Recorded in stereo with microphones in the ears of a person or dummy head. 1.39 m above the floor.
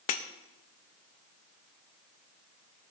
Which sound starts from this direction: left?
Breaking glass, at 0.1 s.